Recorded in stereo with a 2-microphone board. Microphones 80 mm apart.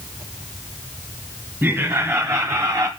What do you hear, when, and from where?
1.6 s laughter: 25° right (ahead or behind), 2.5 m; by 2.9 s 45° right (ahead or behind), 1.5 m